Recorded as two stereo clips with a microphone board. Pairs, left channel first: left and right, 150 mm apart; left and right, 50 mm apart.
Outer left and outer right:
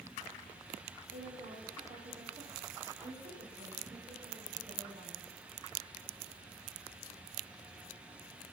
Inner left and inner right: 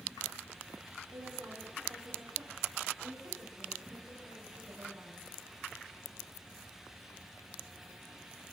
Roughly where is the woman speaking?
Right.